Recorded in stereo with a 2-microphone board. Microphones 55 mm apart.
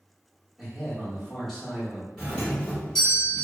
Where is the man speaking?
5° left (ahead or behind), 1.1 m.